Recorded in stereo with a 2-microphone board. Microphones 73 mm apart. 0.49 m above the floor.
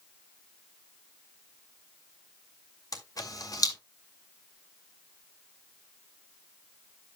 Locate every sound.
2.9 s a camera shutter: 55° left (ahead or behind), 2 m